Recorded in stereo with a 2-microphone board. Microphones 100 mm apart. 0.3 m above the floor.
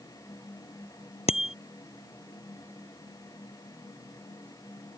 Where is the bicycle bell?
75° left (ahead or behind).